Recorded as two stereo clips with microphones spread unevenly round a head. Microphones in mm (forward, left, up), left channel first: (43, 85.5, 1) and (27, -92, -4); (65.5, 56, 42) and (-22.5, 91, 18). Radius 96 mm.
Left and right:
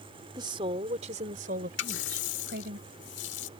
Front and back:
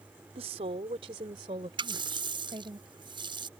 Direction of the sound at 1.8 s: 120° left.